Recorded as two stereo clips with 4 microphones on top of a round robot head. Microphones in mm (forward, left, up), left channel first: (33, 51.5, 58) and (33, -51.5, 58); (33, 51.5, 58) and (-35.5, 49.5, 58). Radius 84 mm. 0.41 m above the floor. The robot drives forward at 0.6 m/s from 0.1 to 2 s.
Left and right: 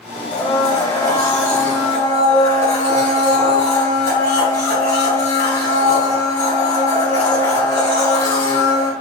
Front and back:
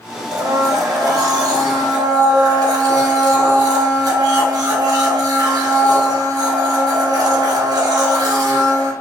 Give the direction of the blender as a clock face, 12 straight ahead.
7 o'clock.